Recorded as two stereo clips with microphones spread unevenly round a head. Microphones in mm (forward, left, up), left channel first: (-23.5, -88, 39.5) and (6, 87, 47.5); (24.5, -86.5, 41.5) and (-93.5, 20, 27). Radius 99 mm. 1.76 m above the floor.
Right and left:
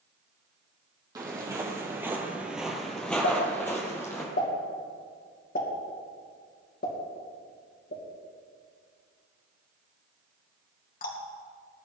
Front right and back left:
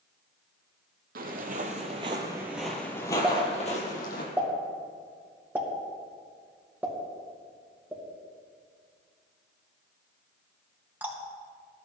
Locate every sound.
1.1 s footsteps: 145° left, 2.5 m; by 4.2 s 25° right, 3 m
3.2 s a pop: 140° right, 3 m